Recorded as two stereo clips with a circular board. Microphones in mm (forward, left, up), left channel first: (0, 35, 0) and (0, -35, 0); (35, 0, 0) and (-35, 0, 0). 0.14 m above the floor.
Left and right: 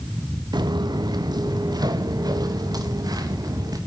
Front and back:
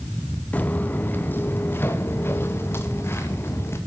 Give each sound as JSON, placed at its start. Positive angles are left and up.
{"t": 0.5, "sound": "footsteps", "azimuth_deg": -70, "distance_m": 0.9}